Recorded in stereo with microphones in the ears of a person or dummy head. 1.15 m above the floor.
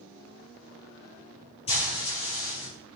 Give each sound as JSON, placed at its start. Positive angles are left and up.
{"t": 1.7, "sound": "frying", "side_deg": 30, "distance_m": 5.0}